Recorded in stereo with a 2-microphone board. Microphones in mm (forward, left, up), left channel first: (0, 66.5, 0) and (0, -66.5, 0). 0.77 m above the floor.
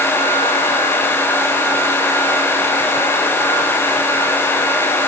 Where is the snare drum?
I don't hear a snare drum.